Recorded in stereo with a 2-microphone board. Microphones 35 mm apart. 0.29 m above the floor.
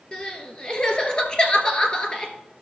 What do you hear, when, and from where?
0.1 s crying: 30° left (ahead or behind), 1.4 m